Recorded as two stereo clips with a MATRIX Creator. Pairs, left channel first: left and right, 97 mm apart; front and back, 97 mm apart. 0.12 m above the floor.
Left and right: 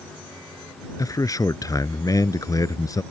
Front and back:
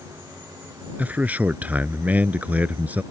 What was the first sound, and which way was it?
A man speaking, 115° left.